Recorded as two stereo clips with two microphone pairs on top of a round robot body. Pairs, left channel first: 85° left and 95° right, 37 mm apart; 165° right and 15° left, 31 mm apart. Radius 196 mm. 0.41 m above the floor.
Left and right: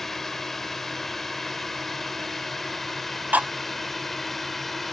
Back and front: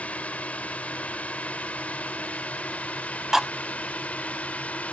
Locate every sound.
0.0 s a drone: 165° left; by 4.9 s 170° left
3.3 s cutlery clinking: 55° right